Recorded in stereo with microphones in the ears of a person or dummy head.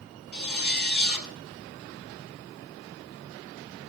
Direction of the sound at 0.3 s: 45° left (ahead or behind).